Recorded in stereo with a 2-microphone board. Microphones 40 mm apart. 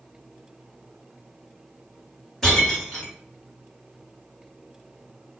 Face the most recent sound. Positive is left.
turn(degrees=5)  # may be behind; listen again after turning